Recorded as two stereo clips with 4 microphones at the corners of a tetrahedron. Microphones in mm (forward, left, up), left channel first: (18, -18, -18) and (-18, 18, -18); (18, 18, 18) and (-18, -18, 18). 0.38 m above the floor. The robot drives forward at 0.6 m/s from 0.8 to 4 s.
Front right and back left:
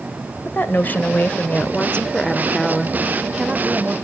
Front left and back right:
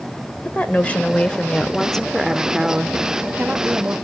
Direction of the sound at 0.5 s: 10° right.